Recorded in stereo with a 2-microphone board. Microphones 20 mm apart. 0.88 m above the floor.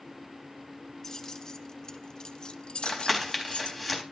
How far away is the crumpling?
About 4 m.